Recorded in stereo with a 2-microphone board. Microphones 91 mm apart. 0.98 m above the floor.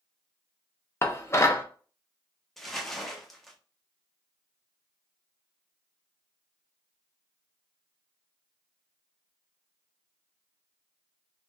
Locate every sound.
1.0 s dishes clattering: 30° left (ahead or behind), 0.5 m
2.6 s crumpling: centre (ahead or behind), 0.6 m